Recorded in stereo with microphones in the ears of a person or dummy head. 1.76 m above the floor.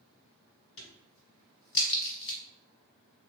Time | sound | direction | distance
0.8 | a crack | 65° left (ahead or behind) | 1.1 m